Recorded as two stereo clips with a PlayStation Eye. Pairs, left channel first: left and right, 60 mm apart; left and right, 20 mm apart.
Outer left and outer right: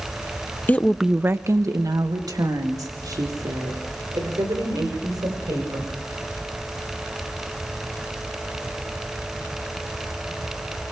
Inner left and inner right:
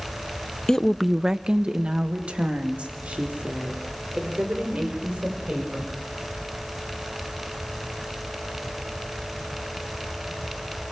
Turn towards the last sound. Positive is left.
turn(degrees=-85)